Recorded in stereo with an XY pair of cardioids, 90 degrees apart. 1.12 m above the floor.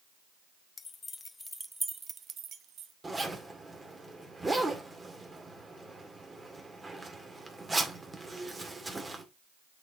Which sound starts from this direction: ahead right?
A zipper, at 3.0 s.